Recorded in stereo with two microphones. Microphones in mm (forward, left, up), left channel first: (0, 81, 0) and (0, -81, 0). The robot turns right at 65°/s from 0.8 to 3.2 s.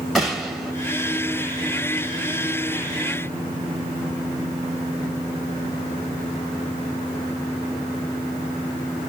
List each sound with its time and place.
0.1 s a gunshot: centre (ahead or behind), 0.8 m